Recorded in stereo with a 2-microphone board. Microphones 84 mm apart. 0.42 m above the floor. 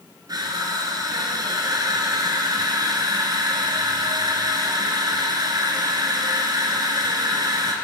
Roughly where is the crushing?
Right.